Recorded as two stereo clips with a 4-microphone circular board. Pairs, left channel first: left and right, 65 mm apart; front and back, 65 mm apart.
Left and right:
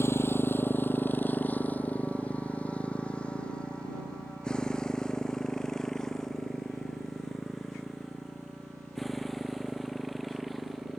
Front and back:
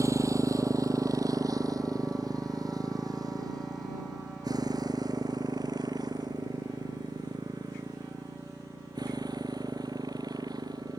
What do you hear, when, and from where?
0.0 s a motorcycle: 140° left; by 11.0 s straight behind